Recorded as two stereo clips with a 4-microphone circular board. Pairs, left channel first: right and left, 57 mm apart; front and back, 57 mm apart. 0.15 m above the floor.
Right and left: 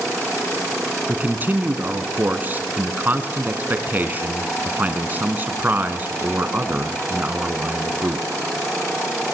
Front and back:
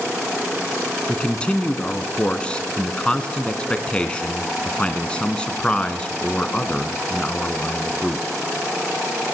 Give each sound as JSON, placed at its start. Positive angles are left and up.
{"t": 1.1, "sound": "a man speaking", "azimuth_deg": 60, "distance_m": 1.7}